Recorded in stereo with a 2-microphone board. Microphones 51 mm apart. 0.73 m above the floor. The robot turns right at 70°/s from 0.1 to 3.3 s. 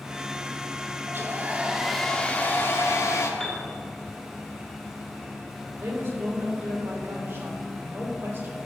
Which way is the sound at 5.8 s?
45° right (ahead or behind).